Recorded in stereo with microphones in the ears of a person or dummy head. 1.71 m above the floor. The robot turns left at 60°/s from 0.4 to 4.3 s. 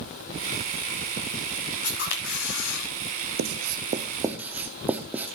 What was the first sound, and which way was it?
A camera shutter, 145° left.